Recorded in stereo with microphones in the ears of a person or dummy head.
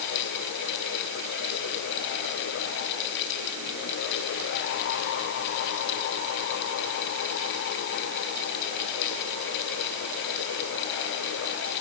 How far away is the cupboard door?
No cupboard door in this recording.